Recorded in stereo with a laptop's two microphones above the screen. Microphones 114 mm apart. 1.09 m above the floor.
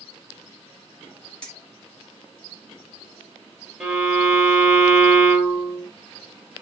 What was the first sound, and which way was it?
Keys jangling, 10° left (ahead or behind).